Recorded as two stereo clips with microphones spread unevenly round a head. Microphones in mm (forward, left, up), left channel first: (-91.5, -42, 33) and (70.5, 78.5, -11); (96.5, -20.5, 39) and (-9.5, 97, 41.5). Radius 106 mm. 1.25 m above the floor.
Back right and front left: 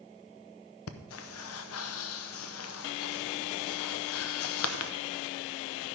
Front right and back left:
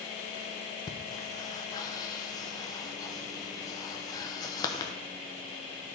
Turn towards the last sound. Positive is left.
turn(degrees=-115)